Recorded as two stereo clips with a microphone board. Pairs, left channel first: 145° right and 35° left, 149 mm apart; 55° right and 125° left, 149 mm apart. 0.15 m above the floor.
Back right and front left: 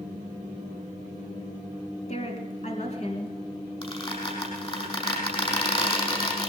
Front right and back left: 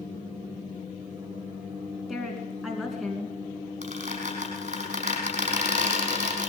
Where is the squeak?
160° left, 5.5 m.